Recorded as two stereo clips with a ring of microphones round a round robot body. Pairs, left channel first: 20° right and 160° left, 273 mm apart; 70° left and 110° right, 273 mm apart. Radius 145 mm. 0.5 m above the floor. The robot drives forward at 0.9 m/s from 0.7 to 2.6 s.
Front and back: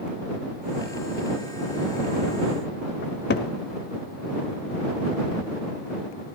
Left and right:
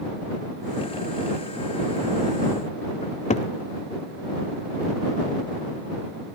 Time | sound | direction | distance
3.0 | a cupboard door | 10° left | 0.9 m